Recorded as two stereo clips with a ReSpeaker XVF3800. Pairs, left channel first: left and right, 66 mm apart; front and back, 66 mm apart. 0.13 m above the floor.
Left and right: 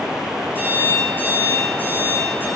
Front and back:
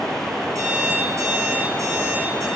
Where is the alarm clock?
155° left, 4.5 m.